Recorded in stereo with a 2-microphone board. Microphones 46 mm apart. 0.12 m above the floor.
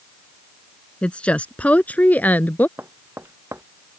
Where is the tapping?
65° right (ahead or behind).